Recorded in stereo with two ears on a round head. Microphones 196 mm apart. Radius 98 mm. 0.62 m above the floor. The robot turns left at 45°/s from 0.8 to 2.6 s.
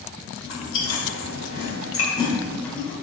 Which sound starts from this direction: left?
Chewing, at 0.4 s.